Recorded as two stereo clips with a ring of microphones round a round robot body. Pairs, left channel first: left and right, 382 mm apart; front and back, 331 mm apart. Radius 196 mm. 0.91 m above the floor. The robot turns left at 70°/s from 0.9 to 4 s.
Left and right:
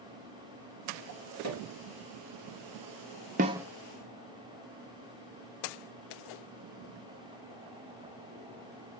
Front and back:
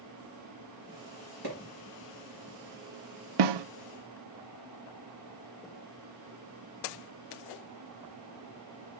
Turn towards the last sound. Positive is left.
turn(degrees=155)